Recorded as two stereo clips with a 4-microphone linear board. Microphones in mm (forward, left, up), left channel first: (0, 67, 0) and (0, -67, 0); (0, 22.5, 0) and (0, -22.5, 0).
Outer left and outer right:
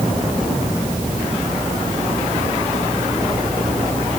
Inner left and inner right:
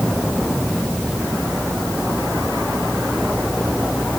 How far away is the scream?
No scream in this recording.